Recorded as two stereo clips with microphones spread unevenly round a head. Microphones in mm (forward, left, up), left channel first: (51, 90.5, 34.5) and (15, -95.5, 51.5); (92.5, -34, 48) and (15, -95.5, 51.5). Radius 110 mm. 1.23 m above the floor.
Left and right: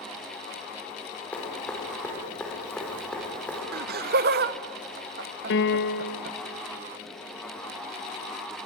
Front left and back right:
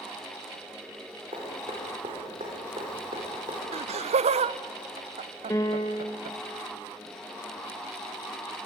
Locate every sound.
1.3 s dripping: 165° left, 4.5 m
3.7 s laughter: 145° right, 0.6 m
5.5 s a piano: 105° left, 1.3 m